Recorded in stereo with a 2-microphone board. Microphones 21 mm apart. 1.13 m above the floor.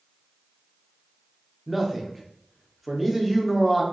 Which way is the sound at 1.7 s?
5° left (ahead or behind).